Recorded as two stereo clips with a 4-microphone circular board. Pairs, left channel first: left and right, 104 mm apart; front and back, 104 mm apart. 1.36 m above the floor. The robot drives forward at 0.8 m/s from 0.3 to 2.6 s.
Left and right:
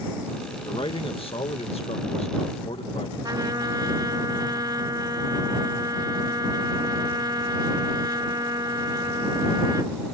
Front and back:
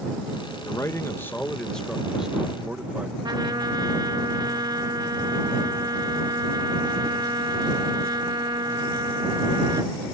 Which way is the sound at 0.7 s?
55° left.